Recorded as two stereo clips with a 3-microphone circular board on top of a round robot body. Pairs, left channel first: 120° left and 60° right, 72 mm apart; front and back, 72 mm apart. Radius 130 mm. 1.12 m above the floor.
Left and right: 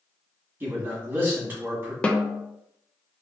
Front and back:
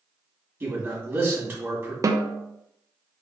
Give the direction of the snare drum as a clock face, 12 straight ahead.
6 o'clock.